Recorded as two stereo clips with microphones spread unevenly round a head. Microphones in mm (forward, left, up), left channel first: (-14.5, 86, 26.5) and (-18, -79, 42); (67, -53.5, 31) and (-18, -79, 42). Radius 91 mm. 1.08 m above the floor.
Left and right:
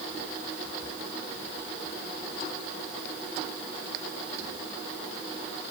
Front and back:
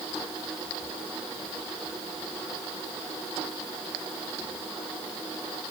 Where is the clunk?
I don't hear a clunk.